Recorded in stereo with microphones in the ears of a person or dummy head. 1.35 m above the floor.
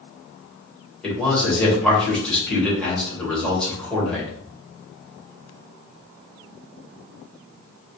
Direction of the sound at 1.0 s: 5° left (ahead or behind).